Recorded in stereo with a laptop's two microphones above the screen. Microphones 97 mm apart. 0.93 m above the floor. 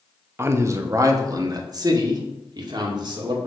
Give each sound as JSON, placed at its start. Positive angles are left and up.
{"t": 0.4, "sound": "a man speaking", "side_deg": -25, "distance_m": 1.0}